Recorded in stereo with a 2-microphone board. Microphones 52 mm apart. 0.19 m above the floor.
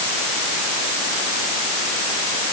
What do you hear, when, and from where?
Only background noise.